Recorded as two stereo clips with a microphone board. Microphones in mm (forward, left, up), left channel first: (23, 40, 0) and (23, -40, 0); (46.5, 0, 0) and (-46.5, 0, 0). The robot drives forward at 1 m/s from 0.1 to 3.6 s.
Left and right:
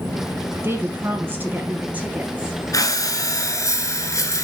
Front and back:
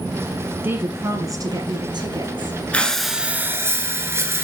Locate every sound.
0.6 s a woman speaking: 125° right, 1.7 m; by 2.6 s 160° right, 3 m
2.7 s breathing: 70° left, 1.2 m; by 4.5 s 125° left, 1.3 m